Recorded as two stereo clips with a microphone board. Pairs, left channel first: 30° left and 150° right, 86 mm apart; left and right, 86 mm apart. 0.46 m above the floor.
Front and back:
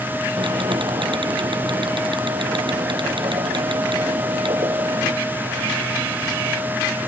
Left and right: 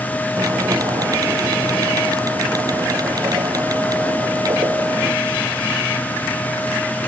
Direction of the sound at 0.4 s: 135° right.